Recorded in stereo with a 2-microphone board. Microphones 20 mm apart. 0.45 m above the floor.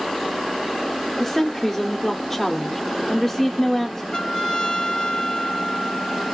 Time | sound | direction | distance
1.2 | a woman speaking | 10° left (ahead or behind) | 0.7 m
4.1 | a trumpet | 55° left (ahead or behind) | 1.8 m